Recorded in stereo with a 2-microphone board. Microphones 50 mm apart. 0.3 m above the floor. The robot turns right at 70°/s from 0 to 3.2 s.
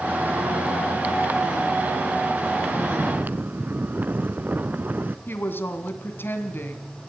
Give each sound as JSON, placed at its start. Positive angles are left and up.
{"t": 2.7, "sound": "snoring", "azimuth_deg": -70, "distance_m": 0.7}
{"t": 5.3, "sound": "a woman speaking", "side_deg": 45, "distance_m": 2.5}